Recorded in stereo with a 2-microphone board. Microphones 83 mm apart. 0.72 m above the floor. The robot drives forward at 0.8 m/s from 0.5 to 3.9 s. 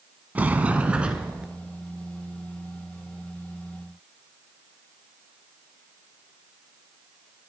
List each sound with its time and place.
0.3 s a sliding door: 20° right (ahead or behind), 0.8 m; by 1.5 s 10° right (ahead or behind), 1.5 m